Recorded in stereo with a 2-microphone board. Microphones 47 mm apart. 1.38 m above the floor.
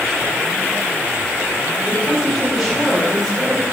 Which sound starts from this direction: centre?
A woman speaking, at 1.9 s.